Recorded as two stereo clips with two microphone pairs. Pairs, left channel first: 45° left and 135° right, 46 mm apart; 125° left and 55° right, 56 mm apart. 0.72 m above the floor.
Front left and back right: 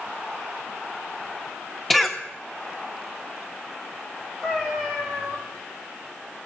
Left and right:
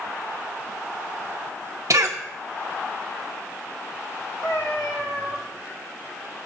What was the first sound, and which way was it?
A cough, 40° right.